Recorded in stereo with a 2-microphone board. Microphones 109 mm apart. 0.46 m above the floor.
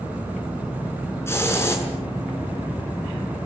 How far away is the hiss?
About 7 m.